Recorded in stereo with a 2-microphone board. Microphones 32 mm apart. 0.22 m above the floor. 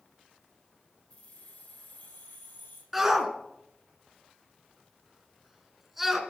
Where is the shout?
5° right (ahead or behind), 2 m.